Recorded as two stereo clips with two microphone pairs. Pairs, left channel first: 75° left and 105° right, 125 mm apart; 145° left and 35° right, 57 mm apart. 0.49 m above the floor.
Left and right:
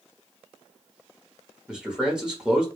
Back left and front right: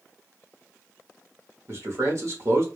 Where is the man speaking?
25° right, 1.2 m.